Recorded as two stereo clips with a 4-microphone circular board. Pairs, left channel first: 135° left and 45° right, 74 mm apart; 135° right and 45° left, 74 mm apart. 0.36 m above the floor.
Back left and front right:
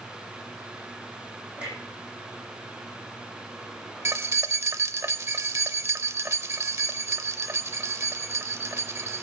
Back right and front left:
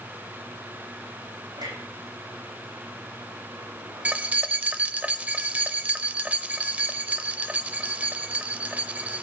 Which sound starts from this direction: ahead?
Keys jangling, at 4.0 s.